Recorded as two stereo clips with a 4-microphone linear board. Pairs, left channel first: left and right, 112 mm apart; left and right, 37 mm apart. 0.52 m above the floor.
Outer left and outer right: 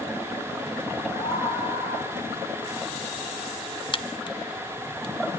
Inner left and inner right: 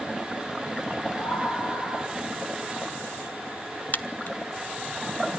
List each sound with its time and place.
1.1 s a scream: 25° left (ahead or behind), 9 m; by 2.2 s 20° left (ahead or behind), 8 m
3.9 s a crack: 40° left (ahead or behind), 0.9 m